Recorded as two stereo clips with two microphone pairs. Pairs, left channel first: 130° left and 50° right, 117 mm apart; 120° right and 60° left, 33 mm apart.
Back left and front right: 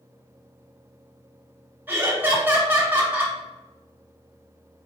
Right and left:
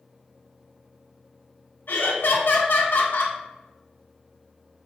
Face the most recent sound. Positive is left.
turn(degrees=-125)